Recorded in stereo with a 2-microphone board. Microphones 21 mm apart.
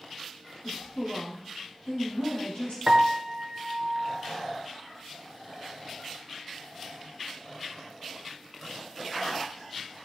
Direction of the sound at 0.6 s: 70° left (ahead or behind).